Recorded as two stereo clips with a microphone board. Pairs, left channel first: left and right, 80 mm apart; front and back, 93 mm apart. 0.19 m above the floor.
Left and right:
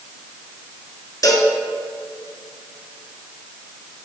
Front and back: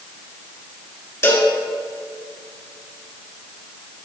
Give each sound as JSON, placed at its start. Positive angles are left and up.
{"t": 1.2, "sound": "a cowbell", "azimuth_deg": 55, "distance_m": 1.3}